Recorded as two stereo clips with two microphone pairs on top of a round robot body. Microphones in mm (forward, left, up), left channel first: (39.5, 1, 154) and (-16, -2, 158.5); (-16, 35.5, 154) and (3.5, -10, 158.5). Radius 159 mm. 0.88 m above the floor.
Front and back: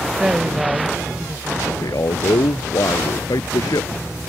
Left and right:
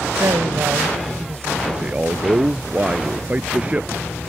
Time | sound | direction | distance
0.2 | a woman speaking | 100° right | ?
1.7 | a man speaking | 5° right | ?